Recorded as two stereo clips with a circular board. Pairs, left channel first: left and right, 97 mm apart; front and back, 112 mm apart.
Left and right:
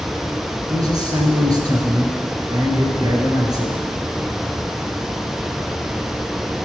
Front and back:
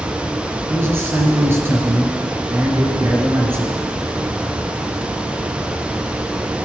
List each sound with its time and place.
0.7 s a man speaking: 120° right, 2 m